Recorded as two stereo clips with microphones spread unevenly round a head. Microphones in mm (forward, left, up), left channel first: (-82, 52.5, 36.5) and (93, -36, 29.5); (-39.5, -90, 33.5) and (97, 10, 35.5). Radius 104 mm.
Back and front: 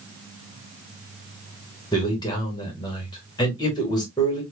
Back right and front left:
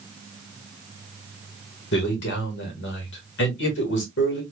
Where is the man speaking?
140° right, 1.8 m.